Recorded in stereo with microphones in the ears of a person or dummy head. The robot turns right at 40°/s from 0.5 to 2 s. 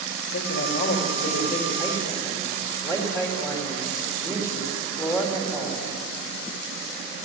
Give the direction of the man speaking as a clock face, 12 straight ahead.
8 o'clock.